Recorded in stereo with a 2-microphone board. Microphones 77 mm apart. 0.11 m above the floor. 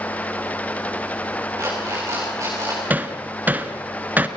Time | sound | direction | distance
1.6 | an alarm clock | 40° right (ahead or behind) | 6.5 m
2.9 | hammering | 20° right (ahead or behind) | 1.2 m